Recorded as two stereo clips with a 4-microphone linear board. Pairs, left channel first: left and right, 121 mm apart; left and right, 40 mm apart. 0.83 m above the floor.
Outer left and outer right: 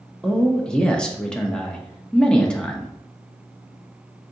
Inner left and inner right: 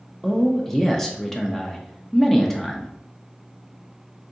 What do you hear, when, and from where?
0.2 s a man speaking: 5° left (ahead or behind), 0.5 m